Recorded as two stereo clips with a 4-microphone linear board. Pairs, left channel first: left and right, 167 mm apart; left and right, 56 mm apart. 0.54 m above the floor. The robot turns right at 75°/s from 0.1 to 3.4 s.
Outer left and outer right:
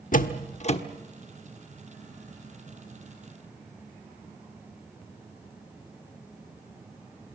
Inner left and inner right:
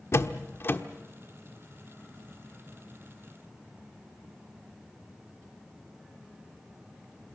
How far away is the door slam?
About 1.1 m.